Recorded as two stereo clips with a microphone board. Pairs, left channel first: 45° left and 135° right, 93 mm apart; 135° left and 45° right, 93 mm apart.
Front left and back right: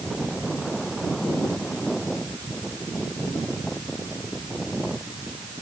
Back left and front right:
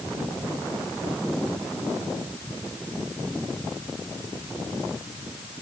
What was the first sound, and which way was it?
Only background noise.